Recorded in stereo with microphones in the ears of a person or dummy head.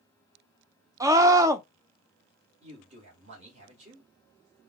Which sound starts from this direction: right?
A man speaking, at 2.6 s.